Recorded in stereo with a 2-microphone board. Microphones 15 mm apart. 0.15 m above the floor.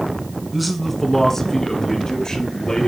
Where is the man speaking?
5° right (ahead or behind), 1.2 m; by 2.9 s 55° left (ahead or behind), 2.5 m.